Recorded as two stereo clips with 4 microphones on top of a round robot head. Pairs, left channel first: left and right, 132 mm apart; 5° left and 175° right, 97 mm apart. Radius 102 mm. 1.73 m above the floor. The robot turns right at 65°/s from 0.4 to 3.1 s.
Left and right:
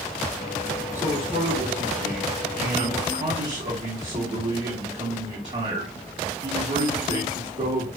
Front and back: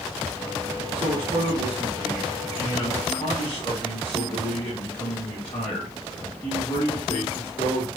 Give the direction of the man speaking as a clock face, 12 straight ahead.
7 o'clock.